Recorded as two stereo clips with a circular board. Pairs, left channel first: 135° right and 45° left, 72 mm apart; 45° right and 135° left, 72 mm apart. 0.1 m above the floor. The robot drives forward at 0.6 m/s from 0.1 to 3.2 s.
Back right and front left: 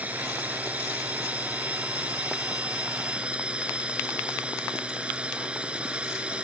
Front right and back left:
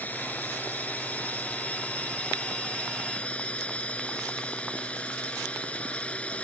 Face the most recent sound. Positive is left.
turn(degrees=0)